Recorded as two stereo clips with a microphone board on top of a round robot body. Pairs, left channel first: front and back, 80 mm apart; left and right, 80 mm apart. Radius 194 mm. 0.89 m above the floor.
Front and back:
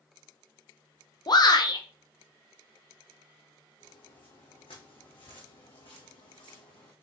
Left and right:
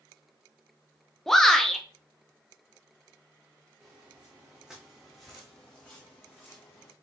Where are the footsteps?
15° right, 3 m; by 6.9 s 30° left, 2.5 m.